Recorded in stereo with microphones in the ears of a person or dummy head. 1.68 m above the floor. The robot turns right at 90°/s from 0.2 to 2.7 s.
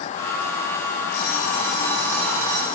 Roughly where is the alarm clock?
Left.